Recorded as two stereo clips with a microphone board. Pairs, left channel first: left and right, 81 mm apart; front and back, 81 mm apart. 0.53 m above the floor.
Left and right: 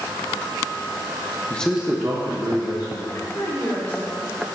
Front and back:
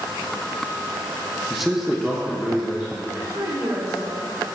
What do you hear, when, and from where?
1.5 s a man speaking: 90° left, 0.6 m; by 3.0 s 100° right, 1.8 m
3.1 s a woman speaking: 140° left, 1.1 m